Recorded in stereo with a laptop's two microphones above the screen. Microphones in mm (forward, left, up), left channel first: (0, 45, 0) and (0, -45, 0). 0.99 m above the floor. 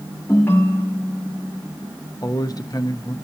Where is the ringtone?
25° left (ahead or behind), 1.5 m.